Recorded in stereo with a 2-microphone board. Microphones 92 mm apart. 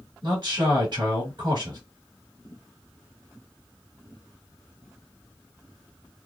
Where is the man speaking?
50° right (ahead or behind), 2.5 m.